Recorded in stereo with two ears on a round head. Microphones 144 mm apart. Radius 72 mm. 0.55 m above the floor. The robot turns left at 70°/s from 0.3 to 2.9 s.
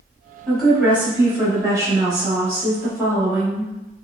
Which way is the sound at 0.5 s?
5° left (ahead or behind).